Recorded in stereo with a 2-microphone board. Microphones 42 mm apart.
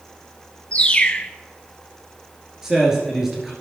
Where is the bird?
30° left (ahead or behind), 0.6 m.